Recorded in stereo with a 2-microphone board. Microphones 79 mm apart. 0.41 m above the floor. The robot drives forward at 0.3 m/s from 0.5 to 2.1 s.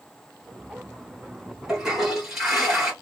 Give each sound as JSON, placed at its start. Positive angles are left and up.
{"t": 1.7, "sound": "a toilet flushing", "side_deg": -5, "distance_m": 1.9}